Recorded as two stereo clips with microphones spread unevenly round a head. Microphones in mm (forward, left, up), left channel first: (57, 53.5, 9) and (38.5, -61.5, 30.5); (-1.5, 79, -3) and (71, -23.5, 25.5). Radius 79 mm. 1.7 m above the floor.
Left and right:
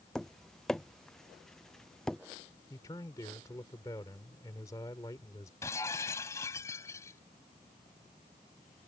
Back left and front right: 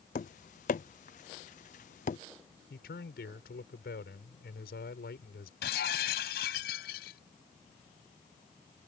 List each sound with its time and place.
0.1 s tapping: 170° left
2.7 s a man speaking: 155° left
5.6 s breaking glass: 160° left